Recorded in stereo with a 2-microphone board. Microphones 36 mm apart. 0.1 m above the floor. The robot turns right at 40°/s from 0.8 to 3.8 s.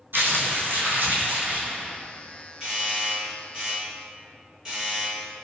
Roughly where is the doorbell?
Right.